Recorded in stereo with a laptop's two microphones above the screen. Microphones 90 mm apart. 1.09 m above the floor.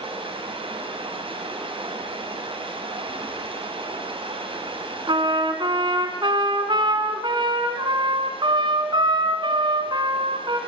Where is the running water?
80° right, 6.5 m.